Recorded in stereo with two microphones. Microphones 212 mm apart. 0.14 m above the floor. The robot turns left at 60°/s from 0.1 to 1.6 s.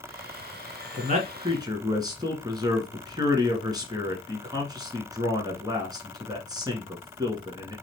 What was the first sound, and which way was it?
A man speaking, 115° right.